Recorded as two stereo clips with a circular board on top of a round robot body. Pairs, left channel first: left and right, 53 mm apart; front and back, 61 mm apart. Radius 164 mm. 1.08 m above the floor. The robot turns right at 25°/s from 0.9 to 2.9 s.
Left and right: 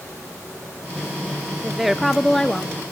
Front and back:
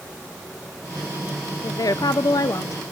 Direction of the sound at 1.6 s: 10° right.